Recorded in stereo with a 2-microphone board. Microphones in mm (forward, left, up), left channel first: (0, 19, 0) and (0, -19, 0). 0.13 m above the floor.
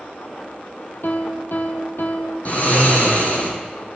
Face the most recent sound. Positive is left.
turn(degrees=45)  # may be behind; listen again after turning